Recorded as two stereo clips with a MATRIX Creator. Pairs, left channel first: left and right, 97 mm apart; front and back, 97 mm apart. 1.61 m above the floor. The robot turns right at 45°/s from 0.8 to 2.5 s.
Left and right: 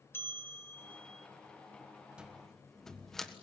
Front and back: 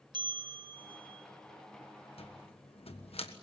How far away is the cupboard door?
About 1.4 m.